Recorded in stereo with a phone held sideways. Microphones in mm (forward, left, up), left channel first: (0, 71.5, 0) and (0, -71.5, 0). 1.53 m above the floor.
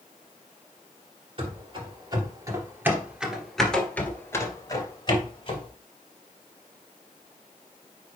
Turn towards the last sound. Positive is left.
turn(degrees=40)  # may be behind; listen again after turning